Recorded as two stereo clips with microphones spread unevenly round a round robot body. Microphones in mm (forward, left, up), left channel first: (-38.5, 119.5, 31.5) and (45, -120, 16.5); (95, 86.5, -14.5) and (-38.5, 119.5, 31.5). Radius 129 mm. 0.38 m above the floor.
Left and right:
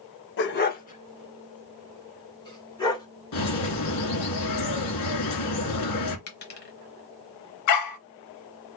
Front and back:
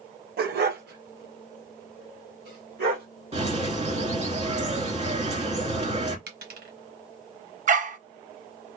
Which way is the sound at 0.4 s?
155° left.